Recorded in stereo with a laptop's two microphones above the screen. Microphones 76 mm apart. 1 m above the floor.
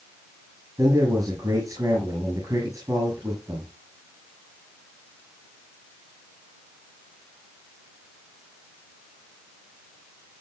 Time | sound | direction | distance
0.8 | a man speaking | 45° right (ahead or behind) | 7 m